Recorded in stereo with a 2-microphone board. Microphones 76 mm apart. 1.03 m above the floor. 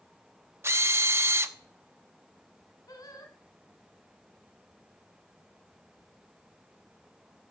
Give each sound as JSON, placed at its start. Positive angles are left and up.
{"t": 0.6, "sound": "a drill", "side_deg": -35, "distance_m": 0.8}
{"t": 2.9, "sound": "singing", "side_deg": 55, "distance_m": 2.5}